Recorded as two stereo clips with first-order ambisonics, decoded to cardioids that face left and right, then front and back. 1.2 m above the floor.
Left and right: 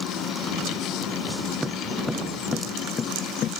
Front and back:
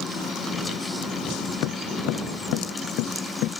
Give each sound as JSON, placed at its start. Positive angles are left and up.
{"t": 1.6, "sound": "footsteps", "azimuth_deg": -5}